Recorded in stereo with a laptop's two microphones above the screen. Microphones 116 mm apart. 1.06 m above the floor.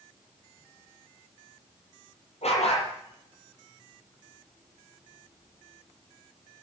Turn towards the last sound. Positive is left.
turn(degrees=80)